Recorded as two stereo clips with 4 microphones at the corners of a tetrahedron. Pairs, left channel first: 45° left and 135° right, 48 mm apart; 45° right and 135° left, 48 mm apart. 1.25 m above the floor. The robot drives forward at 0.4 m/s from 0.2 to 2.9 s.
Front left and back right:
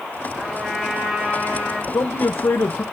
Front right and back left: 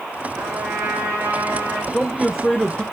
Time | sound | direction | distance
0.3 | a trumpet | 140° left | 9.5 m
1.9 | a man speaking | 35° left | 0.9 m